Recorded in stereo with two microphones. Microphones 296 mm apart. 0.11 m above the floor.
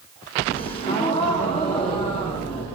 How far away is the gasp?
About 6.5 m.